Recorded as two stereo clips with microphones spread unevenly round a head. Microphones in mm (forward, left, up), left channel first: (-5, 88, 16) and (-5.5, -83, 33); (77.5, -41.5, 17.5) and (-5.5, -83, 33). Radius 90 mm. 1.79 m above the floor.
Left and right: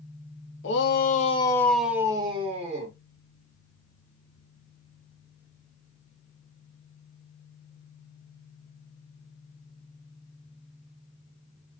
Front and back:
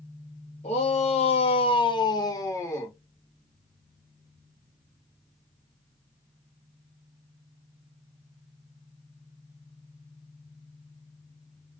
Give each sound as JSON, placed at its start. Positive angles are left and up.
{"t": 0.6, "sound": "a shout", "azimuth_deg": 70, "distance_m": 0.7}